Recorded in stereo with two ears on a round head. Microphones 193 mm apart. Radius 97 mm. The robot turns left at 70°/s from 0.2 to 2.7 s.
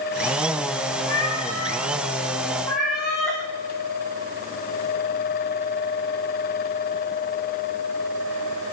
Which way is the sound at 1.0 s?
115° left.